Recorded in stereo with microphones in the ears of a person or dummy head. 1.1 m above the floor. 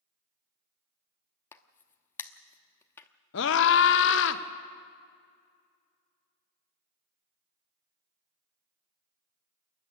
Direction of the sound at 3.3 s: 60° left (ahead or behind).